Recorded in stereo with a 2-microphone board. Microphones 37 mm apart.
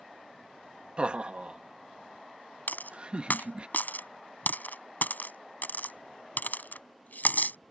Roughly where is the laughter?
Right.